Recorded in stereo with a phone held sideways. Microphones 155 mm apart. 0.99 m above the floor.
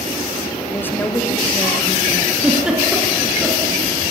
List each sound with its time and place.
0.7 s a woman speaking: 15° left (ahead or behind), 2.5 m
2.4 s a giggle: 5° right (ahead or behind), 5 m